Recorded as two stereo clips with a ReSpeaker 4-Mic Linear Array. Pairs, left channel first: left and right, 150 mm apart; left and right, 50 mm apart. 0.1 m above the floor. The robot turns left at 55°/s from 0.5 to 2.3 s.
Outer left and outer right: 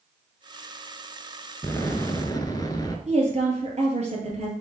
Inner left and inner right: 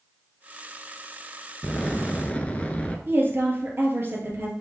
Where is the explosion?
15° left (ahead or behind), 0.8 m; by 3.0 s 25° left (ahead or behind), 0.8 m.